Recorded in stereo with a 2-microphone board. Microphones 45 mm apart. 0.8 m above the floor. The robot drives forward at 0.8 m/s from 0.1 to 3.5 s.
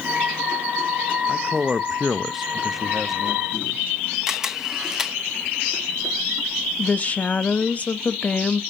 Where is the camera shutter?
10° right (ahead or behind), 0.9 m.